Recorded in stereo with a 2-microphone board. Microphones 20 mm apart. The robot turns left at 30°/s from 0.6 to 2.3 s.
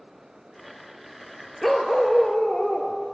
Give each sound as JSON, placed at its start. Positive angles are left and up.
{"t": 1.6, "sound": "a dog barking", "side_deg": 5, "distance_m": 0.9}